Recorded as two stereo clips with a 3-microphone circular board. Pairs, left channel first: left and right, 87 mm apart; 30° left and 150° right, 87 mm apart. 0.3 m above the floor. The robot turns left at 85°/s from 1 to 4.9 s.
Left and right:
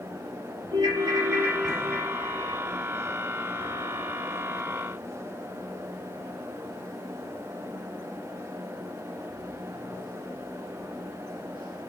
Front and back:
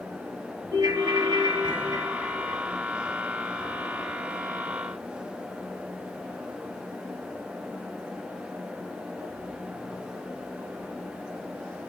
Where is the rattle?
No rattle in this recording.